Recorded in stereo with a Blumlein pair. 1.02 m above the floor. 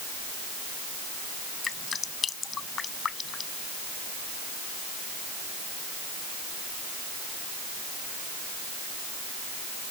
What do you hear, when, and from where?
1.6 s dripping: 20° left